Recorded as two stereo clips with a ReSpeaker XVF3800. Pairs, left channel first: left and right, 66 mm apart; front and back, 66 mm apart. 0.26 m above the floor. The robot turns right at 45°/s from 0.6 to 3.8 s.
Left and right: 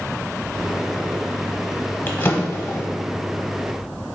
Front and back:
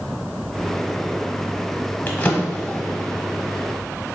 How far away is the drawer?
About 0.8 m.